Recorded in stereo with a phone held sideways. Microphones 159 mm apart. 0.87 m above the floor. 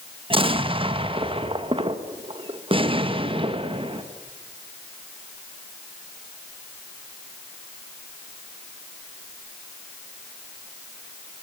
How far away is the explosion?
About 1.1 m.